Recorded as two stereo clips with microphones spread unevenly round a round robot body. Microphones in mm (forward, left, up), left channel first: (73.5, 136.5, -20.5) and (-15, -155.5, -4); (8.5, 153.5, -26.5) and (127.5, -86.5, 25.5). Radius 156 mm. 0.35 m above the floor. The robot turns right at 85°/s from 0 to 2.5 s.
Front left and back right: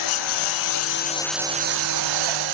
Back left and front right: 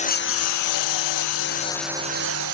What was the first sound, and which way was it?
A lawn mower, 50° left.